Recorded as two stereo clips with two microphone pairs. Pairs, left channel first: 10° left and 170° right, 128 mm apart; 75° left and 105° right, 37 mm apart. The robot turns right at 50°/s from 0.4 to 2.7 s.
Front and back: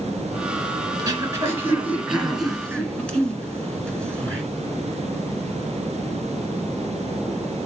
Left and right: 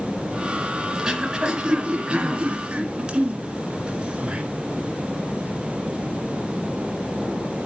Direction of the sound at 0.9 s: 155° right.